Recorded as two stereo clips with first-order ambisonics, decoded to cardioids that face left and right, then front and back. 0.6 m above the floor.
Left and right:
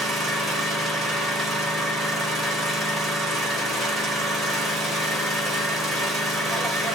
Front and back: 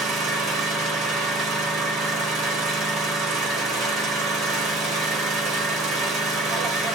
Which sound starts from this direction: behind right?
An engine running, at 0.0 s.